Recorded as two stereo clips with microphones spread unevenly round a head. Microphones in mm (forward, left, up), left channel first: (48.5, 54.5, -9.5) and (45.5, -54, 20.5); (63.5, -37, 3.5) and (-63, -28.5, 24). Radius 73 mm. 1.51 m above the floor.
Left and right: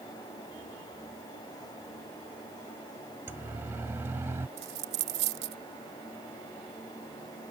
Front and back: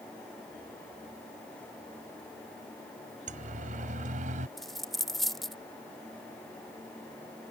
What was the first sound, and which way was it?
A siren, 165° right.